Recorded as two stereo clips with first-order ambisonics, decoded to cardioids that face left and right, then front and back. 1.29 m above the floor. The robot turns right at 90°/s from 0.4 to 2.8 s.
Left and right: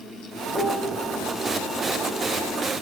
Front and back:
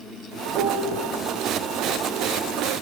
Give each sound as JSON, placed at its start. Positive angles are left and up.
{"t": 0.5, "sound": "a piano", "azimuth_deg": 170, "distance_m": 0.5}